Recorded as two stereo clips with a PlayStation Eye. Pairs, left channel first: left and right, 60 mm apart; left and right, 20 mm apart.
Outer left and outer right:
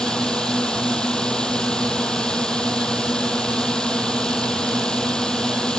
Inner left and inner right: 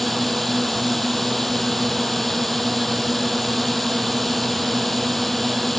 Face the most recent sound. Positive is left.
turn(degrees=15)  # may be behind; listen again after turning